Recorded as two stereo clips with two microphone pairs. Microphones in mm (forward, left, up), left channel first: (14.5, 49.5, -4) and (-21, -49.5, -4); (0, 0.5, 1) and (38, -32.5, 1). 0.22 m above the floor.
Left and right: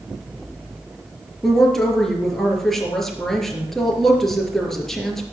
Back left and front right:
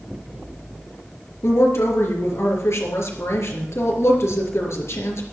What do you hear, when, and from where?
1.4 s a woman speaking: 160° left, 4 m